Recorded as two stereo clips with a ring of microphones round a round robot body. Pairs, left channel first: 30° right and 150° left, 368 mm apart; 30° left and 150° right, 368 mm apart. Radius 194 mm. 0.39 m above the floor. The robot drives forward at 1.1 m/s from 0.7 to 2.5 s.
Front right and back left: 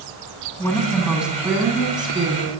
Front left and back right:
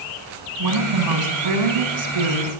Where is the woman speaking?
115° right, 4 m; by 2.5 s 135° right, 5 m.